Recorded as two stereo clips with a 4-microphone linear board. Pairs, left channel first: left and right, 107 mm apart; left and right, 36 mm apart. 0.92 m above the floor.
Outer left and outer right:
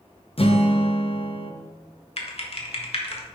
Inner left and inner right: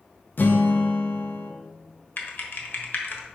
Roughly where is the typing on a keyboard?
Left.